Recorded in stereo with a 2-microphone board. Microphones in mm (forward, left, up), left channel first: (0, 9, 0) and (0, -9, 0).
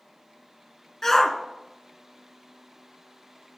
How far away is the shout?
About 1.3 m.